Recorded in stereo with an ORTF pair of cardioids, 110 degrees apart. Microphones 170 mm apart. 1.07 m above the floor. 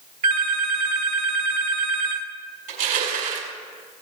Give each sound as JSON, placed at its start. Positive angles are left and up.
{"t": 0.2, "sound": "a phone ringing", "azimuth_deg": -60, "distance_m": 3.0}
{"t": 2.7, "sound": "crushing", "azimuth_deg": -70, "distance_m": 5.0}